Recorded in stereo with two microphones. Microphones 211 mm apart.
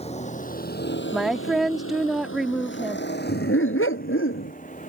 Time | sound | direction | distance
0.0 | a vehicle | 30° left (ahead or behind) | ?
1.1 | a woman speaking | centre (ahead or behind) | ?
3.3 | a dog barking | 80° left | ?